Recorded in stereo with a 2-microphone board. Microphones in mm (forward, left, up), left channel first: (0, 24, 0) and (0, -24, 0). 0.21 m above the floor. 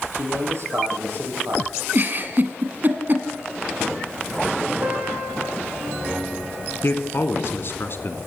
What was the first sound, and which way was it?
A man speaking, 60° right (ahead or behind).